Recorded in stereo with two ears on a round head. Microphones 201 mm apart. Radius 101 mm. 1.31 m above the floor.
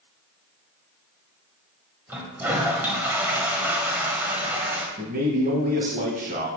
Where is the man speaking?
40° right (ahead or behind), 1.7 m.